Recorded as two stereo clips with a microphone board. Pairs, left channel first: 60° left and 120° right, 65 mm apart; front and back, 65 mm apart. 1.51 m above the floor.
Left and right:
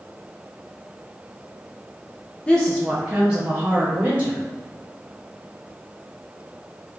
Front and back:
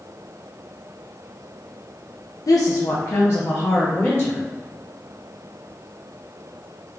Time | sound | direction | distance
2.5 | a woman speaking | 10° right | 0.5 m